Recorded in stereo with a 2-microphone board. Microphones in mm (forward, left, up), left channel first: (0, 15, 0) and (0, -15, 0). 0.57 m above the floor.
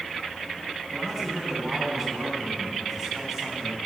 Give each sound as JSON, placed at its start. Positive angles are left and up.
{"t": 0.9, "sound": "a man speaking", "side_deg": -20, "distance_m": 4.0}